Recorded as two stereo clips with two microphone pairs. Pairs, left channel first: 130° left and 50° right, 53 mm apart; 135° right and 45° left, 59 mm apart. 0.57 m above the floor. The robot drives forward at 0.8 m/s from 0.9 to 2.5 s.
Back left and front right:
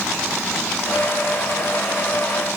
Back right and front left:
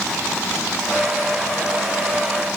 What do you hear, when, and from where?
Only background noise.